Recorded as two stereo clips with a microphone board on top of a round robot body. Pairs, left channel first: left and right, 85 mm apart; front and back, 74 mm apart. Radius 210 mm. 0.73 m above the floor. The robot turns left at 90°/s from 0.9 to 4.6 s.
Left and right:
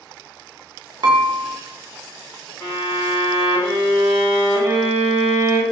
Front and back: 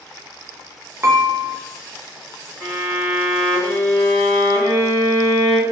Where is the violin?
140° left, 1.8 m; by 5.6 s 40° right, 1.8 m.